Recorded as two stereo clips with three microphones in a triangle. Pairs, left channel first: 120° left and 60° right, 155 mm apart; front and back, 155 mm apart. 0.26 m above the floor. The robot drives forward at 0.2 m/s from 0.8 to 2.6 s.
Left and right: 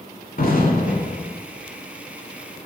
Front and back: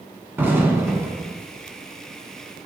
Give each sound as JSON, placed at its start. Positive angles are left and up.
{"t": 0.4, "sound": "an explosion", "azimuth_deg": 105, "distance_m": 0.7}